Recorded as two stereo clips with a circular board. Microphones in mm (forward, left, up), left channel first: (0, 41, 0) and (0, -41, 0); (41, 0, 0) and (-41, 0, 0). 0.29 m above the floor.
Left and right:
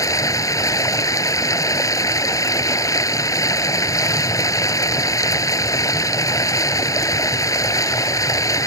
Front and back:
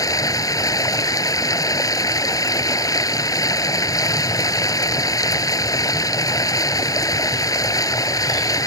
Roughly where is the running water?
Ahead left.